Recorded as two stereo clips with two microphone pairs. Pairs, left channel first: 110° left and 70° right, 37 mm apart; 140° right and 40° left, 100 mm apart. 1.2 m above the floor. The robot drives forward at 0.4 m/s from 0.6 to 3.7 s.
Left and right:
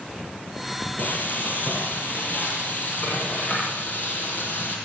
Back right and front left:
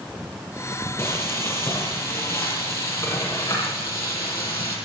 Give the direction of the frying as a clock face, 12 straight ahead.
7 o'clock.